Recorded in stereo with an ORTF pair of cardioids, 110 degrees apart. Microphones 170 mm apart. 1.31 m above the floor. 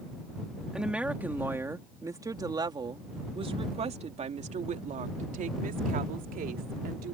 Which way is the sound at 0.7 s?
5° right.